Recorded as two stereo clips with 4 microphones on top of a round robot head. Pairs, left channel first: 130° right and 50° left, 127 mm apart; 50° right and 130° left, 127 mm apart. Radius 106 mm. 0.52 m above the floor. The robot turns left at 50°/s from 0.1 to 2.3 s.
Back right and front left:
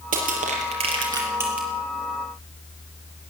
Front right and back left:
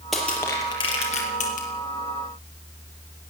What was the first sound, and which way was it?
Crushing, 40° left.